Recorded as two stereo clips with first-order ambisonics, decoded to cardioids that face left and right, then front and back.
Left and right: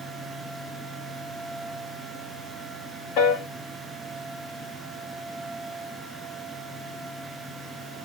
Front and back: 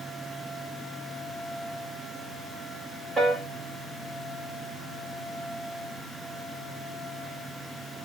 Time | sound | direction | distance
3.2 | a piano | 105° left | 1.4 m